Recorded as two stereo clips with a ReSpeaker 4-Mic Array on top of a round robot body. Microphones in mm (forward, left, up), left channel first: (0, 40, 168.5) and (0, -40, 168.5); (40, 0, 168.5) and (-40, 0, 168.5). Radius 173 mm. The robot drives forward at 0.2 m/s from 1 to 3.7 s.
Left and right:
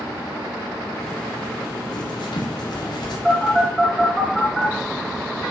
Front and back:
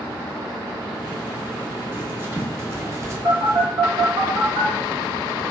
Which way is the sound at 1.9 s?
115° left.